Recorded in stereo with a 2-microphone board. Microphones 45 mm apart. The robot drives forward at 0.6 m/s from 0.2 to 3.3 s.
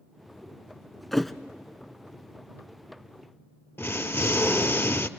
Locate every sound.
1.1 s a thud: 5° left (ahead or behind), 0.6 m
3.8 s an explosion: 60° left (ahead or behind), 0.6 m